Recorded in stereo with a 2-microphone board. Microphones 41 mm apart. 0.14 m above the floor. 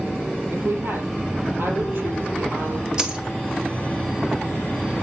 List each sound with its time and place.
0.5 s a woman speaking: 70° right (ahead or behind), 3.5 m
3.0 s a dropped coin: 15° right (ahead or behind), 1.3 m